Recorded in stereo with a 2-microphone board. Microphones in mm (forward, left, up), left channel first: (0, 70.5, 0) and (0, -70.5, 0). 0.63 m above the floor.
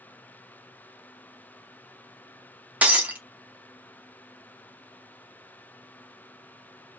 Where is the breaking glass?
10° right (ahead or behind), 0.7 m.